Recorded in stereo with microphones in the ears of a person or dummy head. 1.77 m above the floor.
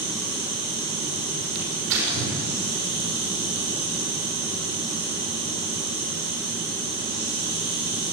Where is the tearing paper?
80° right, 6 m.